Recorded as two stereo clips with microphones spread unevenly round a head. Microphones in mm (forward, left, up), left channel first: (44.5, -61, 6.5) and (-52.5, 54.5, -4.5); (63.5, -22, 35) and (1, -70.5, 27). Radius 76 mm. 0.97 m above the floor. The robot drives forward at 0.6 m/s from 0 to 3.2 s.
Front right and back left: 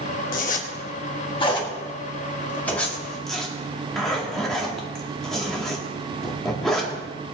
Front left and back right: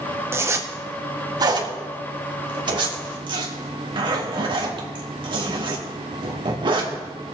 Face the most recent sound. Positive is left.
turn(degrees=-140)